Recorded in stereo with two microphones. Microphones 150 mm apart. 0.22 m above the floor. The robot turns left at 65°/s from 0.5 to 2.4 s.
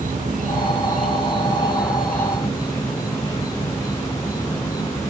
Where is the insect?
80° right, 1.0 m; by 5.1 s 155° left, 1.0 m.